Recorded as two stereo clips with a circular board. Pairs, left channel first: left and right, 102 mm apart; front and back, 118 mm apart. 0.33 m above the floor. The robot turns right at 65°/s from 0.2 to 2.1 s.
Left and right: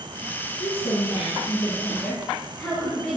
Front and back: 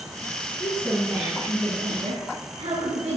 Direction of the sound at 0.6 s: 70° left.